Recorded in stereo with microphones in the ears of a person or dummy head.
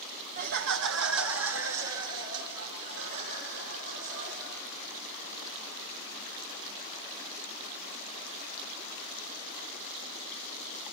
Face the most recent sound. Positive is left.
turn(degrees=-70)  # may be behind; listen again after turning